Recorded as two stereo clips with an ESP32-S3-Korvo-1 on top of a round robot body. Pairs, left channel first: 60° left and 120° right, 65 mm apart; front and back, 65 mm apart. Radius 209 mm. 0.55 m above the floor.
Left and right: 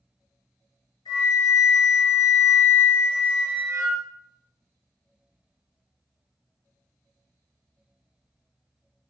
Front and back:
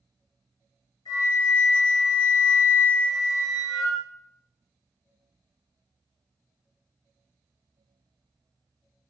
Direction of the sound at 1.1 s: 40° left.